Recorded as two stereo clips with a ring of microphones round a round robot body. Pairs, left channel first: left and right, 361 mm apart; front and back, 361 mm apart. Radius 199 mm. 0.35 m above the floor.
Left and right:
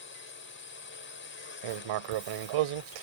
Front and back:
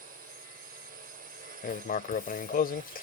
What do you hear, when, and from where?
0.0 s a drone: 125° left
1.6 s writing: 65° right